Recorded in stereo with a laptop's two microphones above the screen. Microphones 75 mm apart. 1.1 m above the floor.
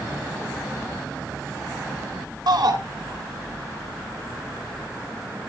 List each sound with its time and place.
2.5 s a shout: 60° right (ahead or behind), 2.5 m